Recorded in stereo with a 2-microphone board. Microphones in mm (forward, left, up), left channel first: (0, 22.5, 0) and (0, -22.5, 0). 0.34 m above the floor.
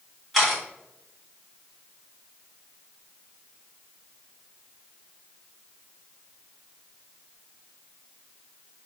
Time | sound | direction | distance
0.3 | a camera shutter | centre (ahead or behind) | 1.6 m